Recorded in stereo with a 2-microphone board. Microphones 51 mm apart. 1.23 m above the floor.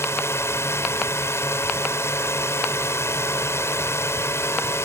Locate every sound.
0.0 s a drone: 65° left (ahead or behind)